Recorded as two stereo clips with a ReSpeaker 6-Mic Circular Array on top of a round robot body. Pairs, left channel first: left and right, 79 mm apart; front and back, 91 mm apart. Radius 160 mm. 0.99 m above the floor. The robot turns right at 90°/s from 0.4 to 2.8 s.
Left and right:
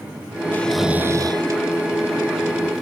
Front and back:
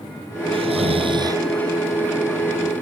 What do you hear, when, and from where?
0.5 s snoring: 160° left; by 1.4 s 120° right